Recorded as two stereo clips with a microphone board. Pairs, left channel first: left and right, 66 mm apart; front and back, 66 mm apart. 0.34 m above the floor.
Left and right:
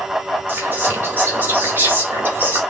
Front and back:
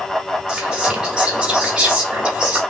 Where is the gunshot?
No gunshot in this recording.